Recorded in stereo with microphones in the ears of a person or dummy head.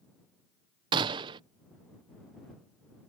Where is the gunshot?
25° right (ahead or behind).